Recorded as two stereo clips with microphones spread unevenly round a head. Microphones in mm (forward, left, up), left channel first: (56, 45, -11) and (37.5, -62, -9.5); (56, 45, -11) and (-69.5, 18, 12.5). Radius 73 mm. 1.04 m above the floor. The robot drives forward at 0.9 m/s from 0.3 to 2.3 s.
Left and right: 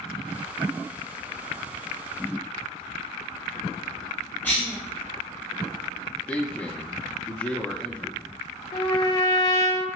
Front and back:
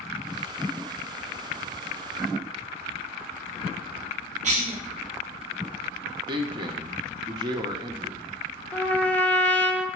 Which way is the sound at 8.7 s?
75° left.